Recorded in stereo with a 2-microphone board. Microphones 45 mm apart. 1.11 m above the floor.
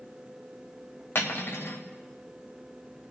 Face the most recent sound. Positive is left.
turn(degrees=65)  # may be behind; listen again after turning